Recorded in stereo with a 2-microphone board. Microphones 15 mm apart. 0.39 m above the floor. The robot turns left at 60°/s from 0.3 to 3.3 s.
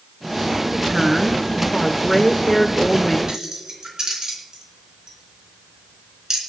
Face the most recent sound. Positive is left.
turn(degrees=-55)  # may be behind; listen again after turning